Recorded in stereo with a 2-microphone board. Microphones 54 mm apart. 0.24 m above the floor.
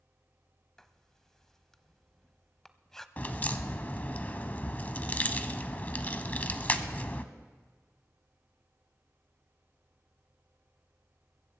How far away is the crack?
About 0.8 m.